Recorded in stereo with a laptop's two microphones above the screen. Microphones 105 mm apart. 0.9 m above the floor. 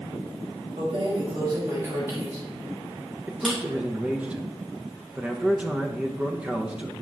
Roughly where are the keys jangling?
Right.